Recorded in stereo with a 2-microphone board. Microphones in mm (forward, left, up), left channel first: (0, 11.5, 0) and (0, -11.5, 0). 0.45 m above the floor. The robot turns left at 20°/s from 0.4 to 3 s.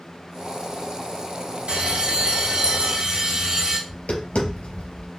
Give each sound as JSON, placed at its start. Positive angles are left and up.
{"t": 1.7, "sound": "a bell", "side_deg": -70, "distance_m": 1.8}
{"t": 3.9, "sound": "tapping", "side_deg": 70, "distance_m": 3.5}